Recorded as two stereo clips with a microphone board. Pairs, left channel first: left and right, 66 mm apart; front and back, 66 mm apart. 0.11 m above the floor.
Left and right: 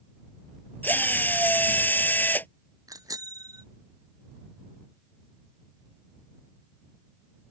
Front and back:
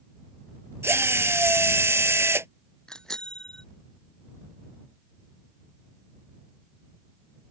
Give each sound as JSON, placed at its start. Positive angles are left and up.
{"t": 0.8, "sound": "a drill", "azimuth_deg": 145}
{"t": 2.9, "sound": "a bicycle bell", "azimuth_deg": -80}